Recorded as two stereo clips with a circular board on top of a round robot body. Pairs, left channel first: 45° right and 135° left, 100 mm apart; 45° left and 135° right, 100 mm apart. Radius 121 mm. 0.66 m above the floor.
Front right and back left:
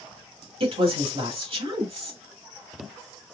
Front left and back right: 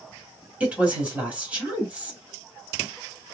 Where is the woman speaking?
150° left, 1.8 m.